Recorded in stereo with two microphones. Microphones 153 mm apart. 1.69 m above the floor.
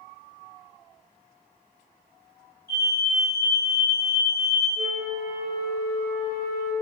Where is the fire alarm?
75° left (ahead or behind), 3.5 m.